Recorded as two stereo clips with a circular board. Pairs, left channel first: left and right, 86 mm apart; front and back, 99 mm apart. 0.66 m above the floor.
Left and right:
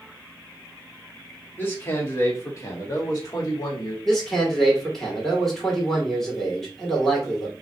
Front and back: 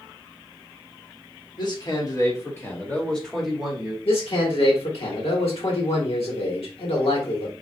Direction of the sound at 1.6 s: 30° left.